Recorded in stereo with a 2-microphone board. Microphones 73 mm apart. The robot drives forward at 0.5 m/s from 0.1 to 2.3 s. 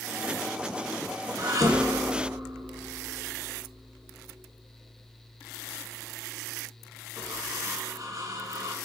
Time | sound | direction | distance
1.4 | dishes clattering | 55° right (ahead or behind) | 1.2 m